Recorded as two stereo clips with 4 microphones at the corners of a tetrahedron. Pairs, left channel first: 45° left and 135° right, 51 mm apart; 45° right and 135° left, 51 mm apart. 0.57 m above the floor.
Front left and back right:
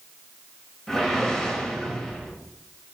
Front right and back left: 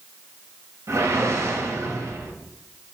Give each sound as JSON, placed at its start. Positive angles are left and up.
{"t": 0.9, "sound": "a whoosh", "azimuth_deg": 125, "distance_m": 0.9}